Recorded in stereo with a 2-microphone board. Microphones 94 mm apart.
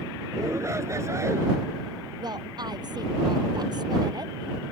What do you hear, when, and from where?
0.3 s a shout: 30° right (ahead or behind)
2.2 s a woman speaking: 50° right (ahead or behind)